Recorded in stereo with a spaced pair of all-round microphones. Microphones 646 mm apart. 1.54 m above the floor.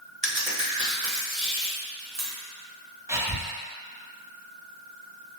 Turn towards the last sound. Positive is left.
turn(degrees=-5)  # may be behind; listen again after turning